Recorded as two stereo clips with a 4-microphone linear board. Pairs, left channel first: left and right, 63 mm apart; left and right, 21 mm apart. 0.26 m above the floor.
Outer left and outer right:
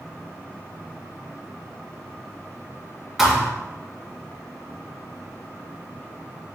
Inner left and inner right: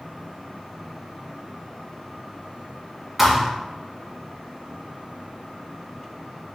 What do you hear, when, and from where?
3.2 s a thud: centre (ahead or behind), 2 m